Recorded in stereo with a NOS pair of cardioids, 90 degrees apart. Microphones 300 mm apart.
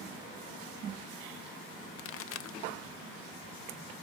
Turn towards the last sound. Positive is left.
turn(degrees=50)